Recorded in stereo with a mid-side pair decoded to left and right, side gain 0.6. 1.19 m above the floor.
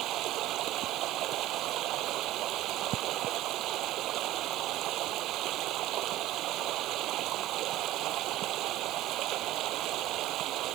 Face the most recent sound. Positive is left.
turn(degrees=-60)